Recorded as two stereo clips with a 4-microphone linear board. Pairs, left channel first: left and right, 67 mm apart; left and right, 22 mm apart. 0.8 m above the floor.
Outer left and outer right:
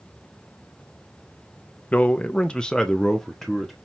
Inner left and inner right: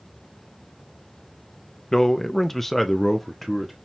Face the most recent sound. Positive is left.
turn(degrees=0)  # may be behind; listen again after turning